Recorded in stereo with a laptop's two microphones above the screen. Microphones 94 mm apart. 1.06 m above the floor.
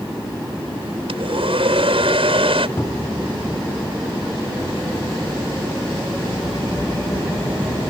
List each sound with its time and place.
1.1 s a hair dryer: 80° right
2.8 s a cupboard door: 30° left (ahead or behind)